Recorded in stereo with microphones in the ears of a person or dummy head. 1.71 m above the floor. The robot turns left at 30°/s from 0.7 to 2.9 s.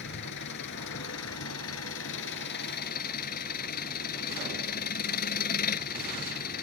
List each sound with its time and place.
0.0 s an engine running: 120° left; by 6.6 s 50° left